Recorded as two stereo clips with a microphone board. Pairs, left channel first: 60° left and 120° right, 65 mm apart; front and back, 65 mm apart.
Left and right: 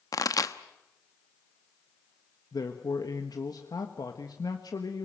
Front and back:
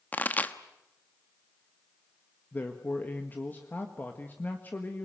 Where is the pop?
60° left, 1.0 m.